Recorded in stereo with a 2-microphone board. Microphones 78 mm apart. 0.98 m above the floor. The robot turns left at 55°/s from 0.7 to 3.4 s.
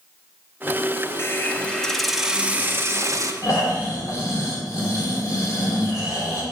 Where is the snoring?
45° left (ahead or behind), 2.5 m.